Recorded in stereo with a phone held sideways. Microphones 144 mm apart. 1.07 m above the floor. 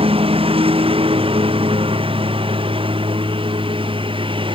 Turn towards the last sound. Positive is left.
turn(degrees=-35)  # may be behind; listen again after turning